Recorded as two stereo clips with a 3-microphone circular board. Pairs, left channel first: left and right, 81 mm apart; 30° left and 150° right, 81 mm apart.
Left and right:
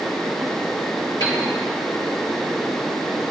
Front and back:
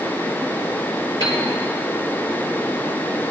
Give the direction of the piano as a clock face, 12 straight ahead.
10 o'clock.